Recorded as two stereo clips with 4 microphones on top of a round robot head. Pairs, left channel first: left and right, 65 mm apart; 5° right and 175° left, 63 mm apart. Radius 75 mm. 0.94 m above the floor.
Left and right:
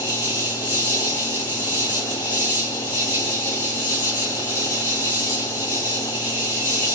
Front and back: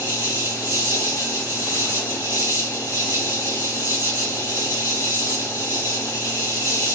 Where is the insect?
20° right, 0.7 m.